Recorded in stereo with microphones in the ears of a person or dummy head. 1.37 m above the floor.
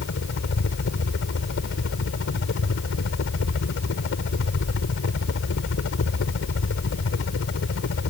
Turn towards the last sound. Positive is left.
turn(degrees=70)  # may be behind; listen again after turning